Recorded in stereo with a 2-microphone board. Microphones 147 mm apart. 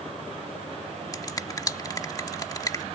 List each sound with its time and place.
1.1 s a finger snap: 25° left (ahead or behind)